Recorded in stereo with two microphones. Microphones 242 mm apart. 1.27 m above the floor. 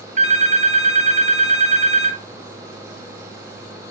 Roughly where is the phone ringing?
Right.